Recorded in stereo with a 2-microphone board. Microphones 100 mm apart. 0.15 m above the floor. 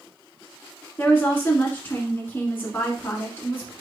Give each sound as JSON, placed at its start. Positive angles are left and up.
{"t": 1.0, "sound": "a woman speaking", "side_deg": 20, "distance_m": 1.3}